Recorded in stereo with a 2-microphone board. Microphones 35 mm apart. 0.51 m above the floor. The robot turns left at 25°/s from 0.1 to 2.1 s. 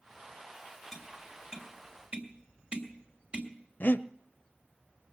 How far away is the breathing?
About 0.6 m.